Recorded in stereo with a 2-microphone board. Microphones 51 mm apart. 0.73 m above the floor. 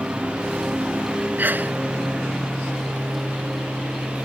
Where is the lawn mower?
20° right (ahead or behind).